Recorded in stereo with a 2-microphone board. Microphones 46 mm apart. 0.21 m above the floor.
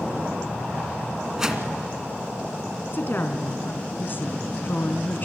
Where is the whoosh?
10° right (ahead or behind), 1.9 m.